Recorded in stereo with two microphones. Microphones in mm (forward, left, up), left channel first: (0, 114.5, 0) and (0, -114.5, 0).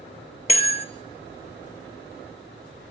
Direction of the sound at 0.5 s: 30° left (ahead or behind).